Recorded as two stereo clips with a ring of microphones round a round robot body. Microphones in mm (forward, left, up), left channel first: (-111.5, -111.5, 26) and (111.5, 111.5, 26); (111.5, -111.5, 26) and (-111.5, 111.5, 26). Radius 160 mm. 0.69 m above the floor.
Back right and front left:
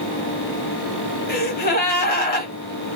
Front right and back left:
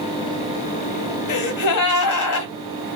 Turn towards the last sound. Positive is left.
turn(degrees=-75)